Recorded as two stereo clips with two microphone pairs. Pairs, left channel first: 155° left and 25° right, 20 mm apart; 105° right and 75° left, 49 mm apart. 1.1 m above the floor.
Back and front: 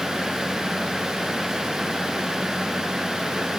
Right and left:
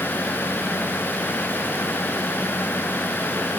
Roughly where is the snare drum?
I don't hear a snare drum.